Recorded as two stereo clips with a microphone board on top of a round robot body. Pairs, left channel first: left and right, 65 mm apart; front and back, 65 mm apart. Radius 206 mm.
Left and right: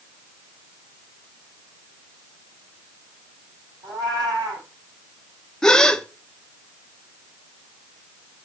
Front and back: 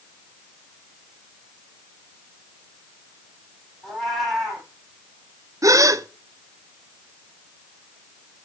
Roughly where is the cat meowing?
Right.